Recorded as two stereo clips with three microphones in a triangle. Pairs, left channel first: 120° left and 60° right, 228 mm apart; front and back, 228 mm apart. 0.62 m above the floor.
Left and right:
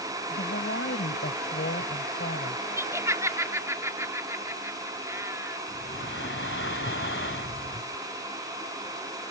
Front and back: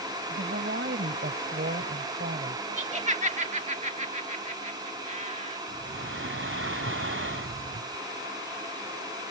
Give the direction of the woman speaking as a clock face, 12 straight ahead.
7 o'clock.